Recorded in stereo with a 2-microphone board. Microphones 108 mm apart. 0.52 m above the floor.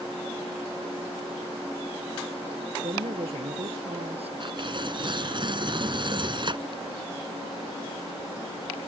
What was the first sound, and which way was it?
A woman speaking, 70° right (ahead or behind).